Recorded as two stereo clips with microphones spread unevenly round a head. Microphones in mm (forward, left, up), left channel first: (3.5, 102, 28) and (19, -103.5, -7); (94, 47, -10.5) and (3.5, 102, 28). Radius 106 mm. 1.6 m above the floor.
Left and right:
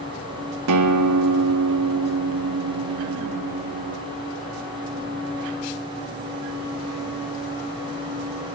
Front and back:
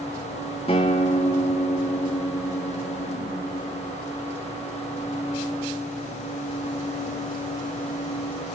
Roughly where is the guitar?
Right.